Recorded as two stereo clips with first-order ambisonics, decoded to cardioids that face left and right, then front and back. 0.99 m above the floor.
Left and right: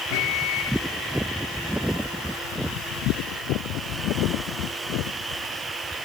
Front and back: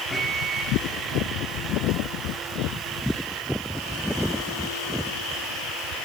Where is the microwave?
85° left, 1.4 m.